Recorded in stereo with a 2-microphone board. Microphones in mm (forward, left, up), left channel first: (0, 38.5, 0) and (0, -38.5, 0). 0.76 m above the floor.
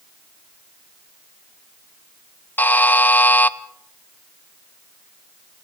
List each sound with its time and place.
2.6 s a buzzer: 20° left (ahead or behind), 0.6 m